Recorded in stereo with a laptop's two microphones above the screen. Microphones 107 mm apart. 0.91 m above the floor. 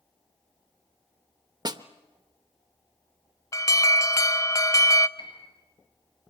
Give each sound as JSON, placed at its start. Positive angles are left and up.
{"t": 1.6, "sound": "a snare drum", "side_deg": -40, "distance_m": 0.8}
{"t": 3.5, "sound": "an alarm", "side_deg": 30, "distance_m": 0.6}
{"t": 5.2, "sound": "a piano", "side_deg": 55, "distance_m": 6.5}